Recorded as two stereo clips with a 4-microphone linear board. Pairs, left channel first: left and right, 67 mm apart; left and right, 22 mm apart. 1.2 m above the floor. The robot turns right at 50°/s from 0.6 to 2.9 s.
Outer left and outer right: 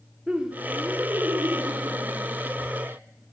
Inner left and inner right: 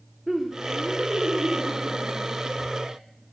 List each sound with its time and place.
0.3 s laughter: 165° right, 0.9 m; by 3.0 s 50° right, 0.9 m